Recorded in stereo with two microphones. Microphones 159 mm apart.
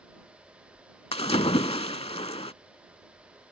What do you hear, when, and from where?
1.1 s a splash: 40° left (ahead or behind)